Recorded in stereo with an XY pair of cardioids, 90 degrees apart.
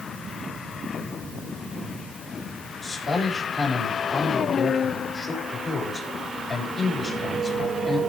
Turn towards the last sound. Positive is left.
turn(degrees=45)